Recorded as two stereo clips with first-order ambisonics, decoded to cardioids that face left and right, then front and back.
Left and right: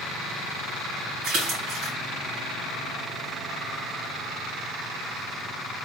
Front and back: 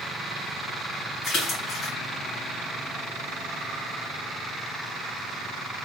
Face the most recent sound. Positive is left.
turn(degrees=-55)